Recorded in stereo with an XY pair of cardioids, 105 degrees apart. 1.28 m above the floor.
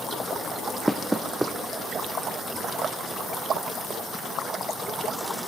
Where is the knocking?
15° right, 0.6 m.